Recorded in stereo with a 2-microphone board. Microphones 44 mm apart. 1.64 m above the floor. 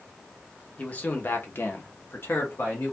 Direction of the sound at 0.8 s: 30° left (ahead or behind).